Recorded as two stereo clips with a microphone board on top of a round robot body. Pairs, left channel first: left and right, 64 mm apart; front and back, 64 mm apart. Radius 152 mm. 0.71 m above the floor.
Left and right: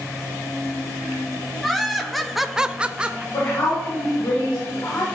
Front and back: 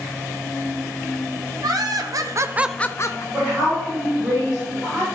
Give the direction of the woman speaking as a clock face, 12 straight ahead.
8 o'clock.